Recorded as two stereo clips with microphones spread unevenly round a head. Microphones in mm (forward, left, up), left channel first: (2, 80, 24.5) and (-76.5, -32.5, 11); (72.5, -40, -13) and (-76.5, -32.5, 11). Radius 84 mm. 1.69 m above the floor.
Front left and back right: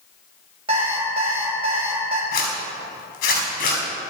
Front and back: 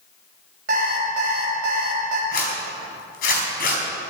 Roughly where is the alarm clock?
Behind.